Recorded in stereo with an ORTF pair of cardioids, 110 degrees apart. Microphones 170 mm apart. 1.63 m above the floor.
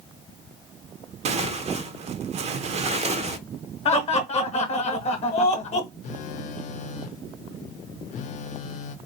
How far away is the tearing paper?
About 0.6 m.